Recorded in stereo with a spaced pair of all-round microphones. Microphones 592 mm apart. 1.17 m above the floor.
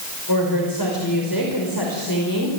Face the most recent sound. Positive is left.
turn(degrees=35)  # may be behind; listen again after turning